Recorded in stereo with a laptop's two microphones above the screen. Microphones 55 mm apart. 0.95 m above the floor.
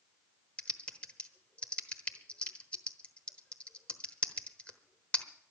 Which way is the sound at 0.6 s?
20° left (ahead or behind).